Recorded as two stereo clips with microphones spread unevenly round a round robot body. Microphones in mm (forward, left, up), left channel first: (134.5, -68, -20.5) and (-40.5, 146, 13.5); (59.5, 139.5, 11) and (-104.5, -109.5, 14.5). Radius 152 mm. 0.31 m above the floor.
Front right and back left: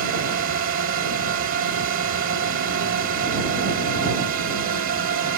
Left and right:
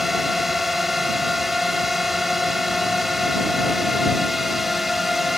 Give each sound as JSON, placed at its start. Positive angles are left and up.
{"t": 0.0, "sound": "a drone", "azimuth_deg": 145}